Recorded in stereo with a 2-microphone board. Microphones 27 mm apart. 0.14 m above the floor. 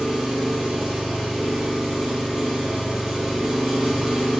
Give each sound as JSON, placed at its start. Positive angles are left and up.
{"t": 0.0, "sound": "an engine running", "side_deg": -25, "distance_m": 1.6}